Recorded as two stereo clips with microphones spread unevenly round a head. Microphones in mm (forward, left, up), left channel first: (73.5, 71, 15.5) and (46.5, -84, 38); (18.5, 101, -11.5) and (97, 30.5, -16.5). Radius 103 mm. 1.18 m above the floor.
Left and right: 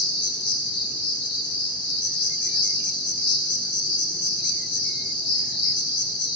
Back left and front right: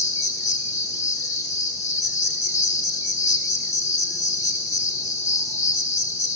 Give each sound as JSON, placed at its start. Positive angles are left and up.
{"t": 0.0, "sound": "an insect", "azimuth_deg": 145, "distance_m": 1.3}